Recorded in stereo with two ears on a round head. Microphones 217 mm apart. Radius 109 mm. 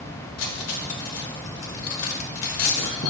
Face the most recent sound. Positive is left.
turn(degrees=70)  # may be behind; listen again after turning